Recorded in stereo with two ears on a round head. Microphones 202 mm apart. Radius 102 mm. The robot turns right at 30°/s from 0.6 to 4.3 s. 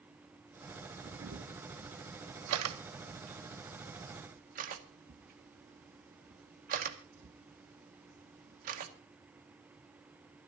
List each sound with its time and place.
1.0 s a camera shutter: 45° right (ahead or behind), 2.0 m; by 8.9 s 35° right (ahead or behind), 2.0 m